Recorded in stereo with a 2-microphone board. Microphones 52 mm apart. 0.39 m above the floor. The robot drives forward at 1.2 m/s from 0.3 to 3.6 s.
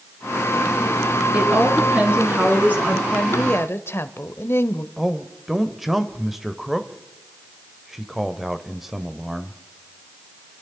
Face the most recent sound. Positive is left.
turn(degrees=-5)  # may be behind; listen again after turning